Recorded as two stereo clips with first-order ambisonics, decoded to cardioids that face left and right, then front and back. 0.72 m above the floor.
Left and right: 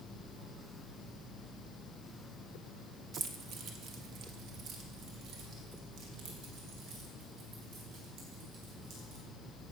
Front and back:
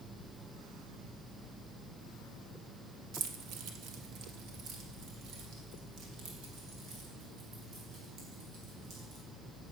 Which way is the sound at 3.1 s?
150° right.